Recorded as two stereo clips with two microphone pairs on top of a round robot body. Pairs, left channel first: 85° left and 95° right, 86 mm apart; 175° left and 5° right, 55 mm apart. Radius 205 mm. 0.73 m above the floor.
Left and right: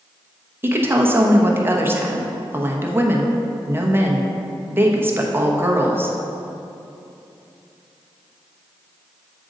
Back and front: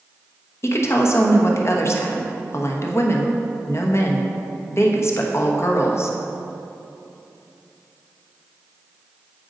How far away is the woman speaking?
About 1.1 m.